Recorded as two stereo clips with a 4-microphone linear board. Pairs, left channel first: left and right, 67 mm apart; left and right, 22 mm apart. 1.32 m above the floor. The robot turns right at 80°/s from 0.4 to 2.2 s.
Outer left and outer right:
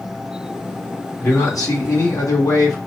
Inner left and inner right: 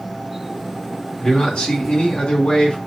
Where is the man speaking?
30° left, 1.6 m; by 2.8 s 110° left, 1.6 m.